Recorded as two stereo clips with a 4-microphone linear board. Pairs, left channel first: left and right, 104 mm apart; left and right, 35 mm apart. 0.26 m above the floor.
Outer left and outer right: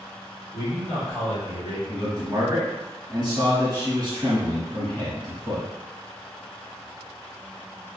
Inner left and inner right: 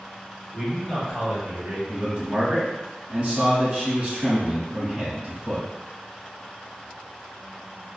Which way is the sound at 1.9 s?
35° right (ahead or behind).